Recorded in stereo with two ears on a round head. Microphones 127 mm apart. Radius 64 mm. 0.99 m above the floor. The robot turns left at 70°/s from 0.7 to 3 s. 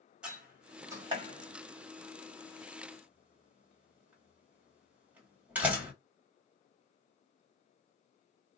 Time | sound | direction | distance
0.2 | a door slam | 5° right (ahead or behind) | 1.4 m